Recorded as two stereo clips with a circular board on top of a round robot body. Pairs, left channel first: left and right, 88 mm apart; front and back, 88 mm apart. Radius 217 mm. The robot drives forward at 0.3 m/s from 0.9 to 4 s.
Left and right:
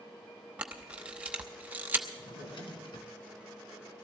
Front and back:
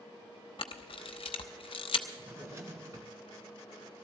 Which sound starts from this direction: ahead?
A camera shutter, at 0.6 s.